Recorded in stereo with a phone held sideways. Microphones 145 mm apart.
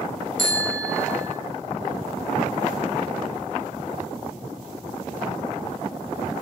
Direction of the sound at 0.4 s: 70° right (ahead or behind).